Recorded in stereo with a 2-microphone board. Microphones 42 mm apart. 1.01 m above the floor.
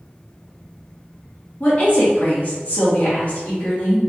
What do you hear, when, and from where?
1.6 s a woman speaking: 40° left (ahead or behind), 1.6 m